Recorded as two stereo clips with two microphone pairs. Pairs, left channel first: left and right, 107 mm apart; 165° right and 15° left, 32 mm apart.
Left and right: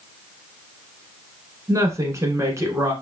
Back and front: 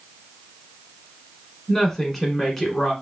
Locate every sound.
1.7 s a woman speaking: 80° right, 1.5 m